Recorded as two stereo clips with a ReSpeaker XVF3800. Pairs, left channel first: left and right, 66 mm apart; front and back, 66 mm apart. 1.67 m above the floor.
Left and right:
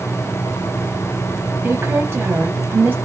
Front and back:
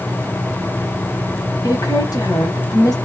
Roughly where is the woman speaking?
Ahead right.